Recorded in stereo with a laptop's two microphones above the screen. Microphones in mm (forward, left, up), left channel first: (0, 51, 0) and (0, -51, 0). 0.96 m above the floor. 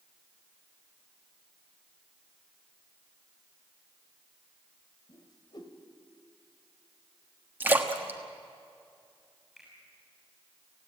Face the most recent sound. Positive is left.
turn(degrees=0)  # may be behind; listen again after turning